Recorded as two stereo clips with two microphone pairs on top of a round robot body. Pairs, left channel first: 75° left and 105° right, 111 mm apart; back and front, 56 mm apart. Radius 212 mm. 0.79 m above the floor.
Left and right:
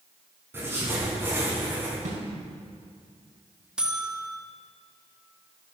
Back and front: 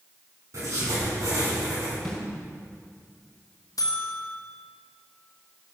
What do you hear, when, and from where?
0.5 s writing: 35° right, 5.5 m
2.0 s a snare drum: 100° right, 3.5 m
3.8 s a buzzer: 170° left, 1.8 m